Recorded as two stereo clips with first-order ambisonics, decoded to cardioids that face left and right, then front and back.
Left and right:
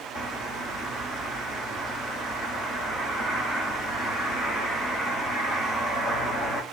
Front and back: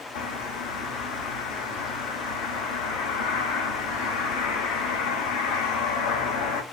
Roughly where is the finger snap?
I don't hear a finger snap.